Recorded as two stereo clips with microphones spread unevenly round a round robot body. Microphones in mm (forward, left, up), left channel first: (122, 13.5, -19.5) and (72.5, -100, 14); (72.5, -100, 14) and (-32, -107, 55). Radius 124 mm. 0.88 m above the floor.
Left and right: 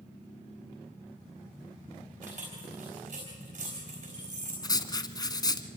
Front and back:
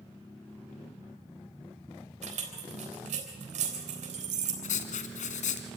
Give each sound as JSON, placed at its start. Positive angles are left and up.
{"t": 2.2, "sound": "keys jangling", "azimuth_deg": -175, "distance_m": 3.5}
{"t": 4.6, "sound": "writing", "azimuth_deg": 0, "distance_m": 1.7}